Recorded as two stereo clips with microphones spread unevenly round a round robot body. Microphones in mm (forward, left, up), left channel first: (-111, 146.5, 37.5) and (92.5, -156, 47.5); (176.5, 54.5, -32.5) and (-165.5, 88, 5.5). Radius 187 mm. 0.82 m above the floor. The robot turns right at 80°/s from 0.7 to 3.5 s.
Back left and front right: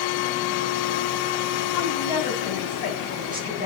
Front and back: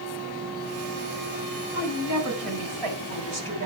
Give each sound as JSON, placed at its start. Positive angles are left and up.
{"t": 1.7, "sound": "a woman speaking", "azimuth_deg": 100, "distance_m": 4.5}